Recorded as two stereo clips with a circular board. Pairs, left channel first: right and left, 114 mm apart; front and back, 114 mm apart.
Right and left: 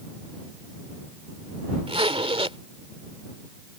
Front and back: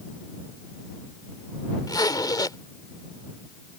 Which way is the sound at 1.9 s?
55° left.